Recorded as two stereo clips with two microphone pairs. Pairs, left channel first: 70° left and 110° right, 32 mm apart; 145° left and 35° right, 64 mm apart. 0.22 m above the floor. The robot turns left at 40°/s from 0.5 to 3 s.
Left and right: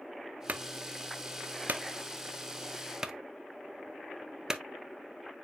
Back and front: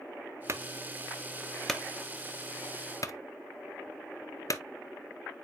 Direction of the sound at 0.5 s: 80° right.